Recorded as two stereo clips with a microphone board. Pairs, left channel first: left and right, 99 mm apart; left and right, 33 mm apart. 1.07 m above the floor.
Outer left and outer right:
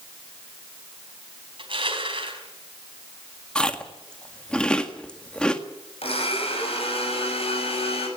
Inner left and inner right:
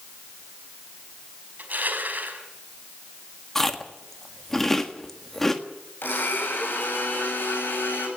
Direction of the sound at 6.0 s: 75° left (ahead or behind).